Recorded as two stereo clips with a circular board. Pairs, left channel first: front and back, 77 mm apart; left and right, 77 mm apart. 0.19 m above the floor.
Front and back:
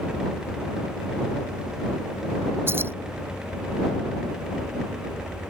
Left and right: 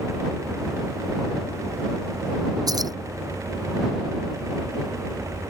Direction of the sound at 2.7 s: 120° right.